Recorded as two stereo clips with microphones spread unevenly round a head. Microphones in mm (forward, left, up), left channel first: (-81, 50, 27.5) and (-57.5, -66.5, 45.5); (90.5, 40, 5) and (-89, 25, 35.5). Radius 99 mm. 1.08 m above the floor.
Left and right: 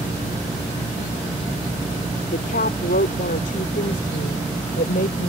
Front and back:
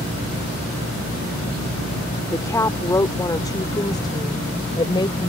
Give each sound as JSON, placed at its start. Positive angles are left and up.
{"t": 2.3, "sound": "a woman speaking", "azimuth_deg": 80}